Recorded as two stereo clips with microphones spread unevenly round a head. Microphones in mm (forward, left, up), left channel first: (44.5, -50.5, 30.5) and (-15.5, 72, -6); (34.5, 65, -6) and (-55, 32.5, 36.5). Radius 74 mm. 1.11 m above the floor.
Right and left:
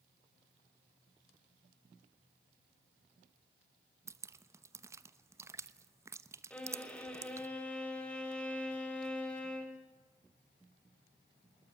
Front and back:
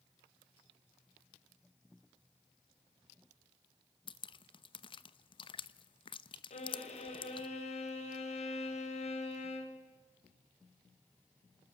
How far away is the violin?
About 4.5 m.